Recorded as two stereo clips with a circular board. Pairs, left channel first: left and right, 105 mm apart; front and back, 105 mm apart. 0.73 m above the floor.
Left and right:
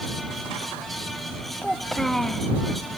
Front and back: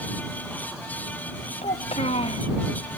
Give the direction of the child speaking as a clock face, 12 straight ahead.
12 o'clock.